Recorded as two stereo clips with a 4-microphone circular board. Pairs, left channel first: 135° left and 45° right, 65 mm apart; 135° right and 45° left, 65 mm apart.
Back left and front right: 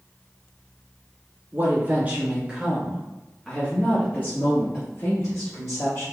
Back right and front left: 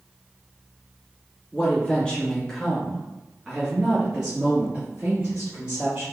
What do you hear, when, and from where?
1.5 s a woman speaking: 75° right, 1.3 m; by 6.0 s 110° left, 1.9 m